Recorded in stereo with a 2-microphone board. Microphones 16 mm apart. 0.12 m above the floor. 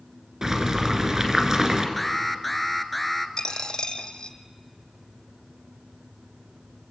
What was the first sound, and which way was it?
Boiling, 35° right (ahead or behind).